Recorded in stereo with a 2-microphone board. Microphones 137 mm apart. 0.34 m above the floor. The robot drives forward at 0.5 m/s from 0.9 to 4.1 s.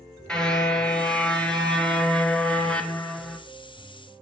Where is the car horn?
5° left (ahead or behind), 3.5 m; by 3.4 s 10° left (ahead or behind), 2.5 m.